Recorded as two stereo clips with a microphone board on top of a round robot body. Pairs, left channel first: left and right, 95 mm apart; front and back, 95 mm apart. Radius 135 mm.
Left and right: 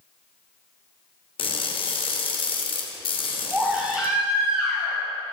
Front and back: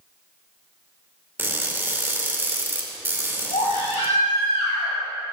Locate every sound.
1.4 s crushing: 110° left, 2.5 m
3.5 s a baby crying: 10° right, 5 m